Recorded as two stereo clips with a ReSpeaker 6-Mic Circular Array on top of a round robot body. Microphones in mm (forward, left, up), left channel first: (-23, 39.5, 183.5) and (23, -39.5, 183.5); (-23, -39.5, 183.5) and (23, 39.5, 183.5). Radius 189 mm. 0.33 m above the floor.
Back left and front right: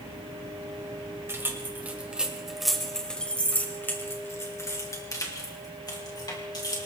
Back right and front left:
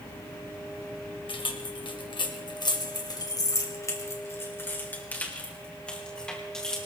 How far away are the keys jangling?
About 2 m.